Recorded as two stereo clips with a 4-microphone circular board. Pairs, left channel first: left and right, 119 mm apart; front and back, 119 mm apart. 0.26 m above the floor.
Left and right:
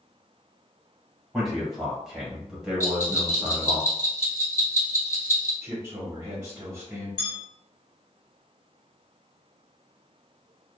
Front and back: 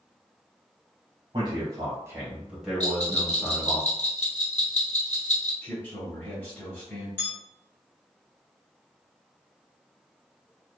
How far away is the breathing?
No breathing in this recording.